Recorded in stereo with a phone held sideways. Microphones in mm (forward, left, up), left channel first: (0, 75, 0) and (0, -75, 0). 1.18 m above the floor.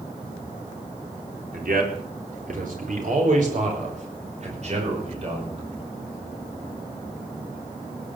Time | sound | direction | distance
1.5 | a man speaking | 75° right (ahead or behind) | 4 m